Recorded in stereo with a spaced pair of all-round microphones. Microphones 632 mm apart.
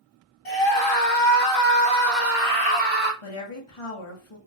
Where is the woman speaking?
55° left (ahead or behind), 1.2 m.